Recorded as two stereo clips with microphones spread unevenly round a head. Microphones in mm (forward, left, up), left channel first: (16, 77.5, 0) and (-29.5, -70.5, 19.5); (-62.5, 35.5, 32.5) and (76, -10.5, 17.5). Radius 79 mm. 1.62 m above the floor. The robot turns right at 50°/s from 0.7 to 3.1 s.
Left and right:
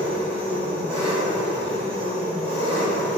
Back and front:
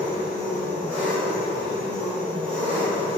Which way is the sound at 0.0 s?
5° right.